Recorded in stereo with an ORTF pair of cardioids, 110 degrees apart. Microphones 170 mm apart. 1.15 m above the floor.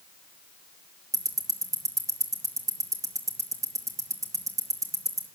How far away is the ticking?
About 2 m.